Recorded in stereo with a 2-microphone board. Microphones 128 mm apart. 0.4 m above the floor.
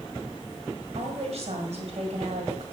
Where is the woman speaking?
60° right (ahead or behind), 2 m.